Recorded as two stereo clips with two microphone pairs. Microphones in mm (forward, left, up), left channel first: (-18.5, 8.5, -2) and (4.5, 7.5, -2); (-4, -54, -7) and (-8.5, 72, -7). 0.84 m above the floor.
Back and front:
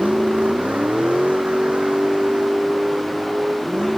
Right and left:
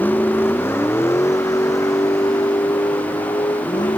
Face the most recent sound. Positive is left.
turn(degrees=-35)